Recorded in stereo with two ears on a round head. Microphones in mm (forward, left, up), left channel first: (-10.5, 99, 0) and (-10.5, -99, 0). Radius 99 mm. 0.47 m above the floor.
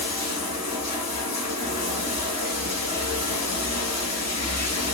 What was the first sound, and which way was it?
Running water, 80° left.